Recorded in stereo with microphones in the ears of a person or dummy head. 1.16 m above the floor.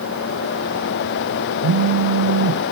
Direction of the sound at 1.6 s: 60° right (ahead or behind).